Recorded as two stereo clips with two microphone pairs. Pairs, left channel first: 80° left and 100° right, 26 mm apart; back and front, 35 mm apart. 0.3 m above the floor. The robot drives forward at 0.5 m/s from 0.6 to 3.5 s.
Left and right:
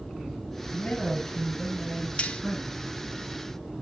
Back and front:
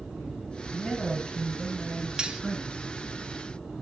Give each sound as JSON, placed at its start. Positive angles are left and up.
{"t": 0.7, "sound": "a man speaking", "azimuth_deg": 95, "distance_m": 7.0}
{"t": 2.2, "sound": "cutlery clinking", "azimuth_deg": 65, "distance_m": 0.8}